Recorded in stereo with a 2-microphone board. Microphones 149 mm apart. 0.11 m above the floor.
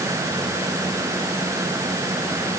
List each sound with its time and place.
Only background noise.